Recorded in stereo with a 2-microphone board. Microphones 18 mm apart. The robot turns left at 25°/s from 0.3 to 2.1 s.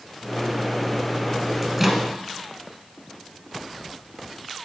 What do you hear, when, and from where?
1.6 s a microwave: 15° right (ahead or behind), 1.7 m; by 2.0 s 20° right (ahead or behind), 1.7 m